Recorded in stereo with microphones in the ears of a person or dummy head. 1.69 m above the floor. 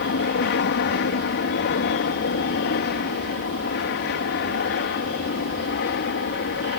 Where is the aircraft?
55° left (ahead or behind).